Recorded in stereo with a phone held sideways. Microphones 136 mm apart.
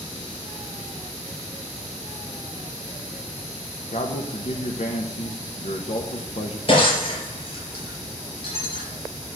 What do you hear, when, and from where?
3.9 s a man speaking: 55° left (ahead or behind), 1.1 m
6.7 s breaking glass: 40° left (ahead or behind), 4.5 m